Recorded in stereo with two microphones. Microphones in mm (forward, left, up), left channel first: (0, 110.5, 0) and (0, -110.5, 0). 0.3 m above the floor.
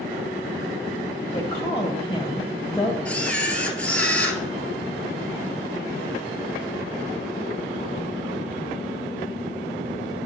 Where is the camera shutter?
5° left (ahead or behind), 0.9 m.